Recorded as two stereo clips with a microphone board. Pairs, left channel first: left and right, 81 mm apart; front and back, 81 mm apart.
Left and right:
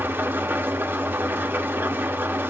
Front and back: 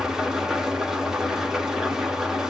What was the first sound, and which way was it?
An engine running, 105° right.